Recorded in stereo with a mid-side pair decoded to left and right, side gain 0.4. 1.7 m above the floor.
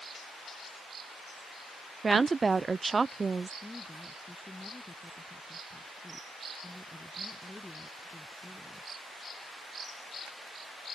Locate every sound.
2.0 s a woman speaking: 30° right
3.6 s a woman speaking: 15° left